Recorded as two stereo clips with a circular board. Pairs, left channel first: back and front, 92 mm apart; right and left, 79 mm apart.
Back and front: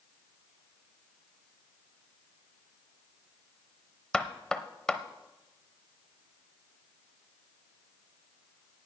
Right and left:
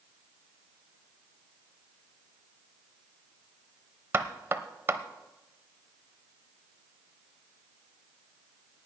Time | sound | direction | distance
4.1 | knocking | 105° left | 0.8 m